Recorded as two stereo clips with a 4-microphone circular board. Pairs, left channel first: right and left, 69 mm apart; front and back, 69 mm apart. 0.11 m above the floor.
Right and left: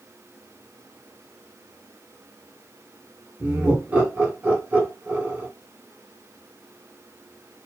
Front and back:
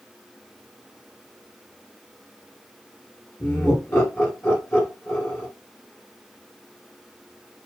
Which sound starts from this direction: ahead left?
Laughter, at 3.4 s.